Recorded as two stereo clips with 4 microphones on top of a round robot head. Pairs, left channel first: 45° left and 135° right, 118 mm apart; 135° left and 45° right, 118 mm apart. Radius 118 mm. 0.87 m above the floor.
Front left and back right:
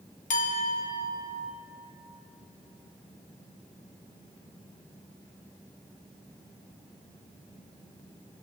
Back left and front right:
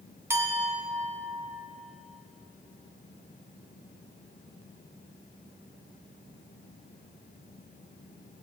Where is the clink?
25° left, 1.2 m.